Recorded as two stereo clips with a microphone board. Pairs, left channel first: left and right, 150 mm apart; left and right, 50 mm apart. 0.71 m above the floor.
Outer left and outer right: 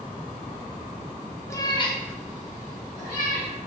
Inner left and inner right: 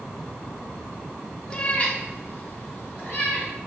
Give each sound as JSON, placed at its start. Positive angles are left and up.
{"t": 1.5, "sound": "a cat meowing", "side_deg": 20, "distance_m": 0.5}